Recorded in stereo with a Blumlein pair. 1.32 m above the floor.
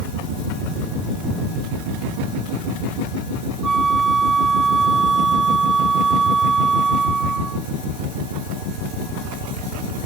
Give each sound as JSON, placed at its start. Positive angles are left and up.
{"t": 3.6, "sound": "a flute", "azimuth_deg": -15}